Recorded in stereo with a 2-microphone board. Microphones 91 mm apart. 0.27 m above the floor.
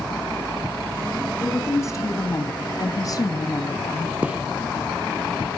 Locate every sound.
1.4 s a woman speaking: 30° left (ahead or behind), 3 m; by 4.2 s 35° left (ahead or behind), 1.8 m
4.2 s a gunshot: 15° right (ahead or behind), 3 m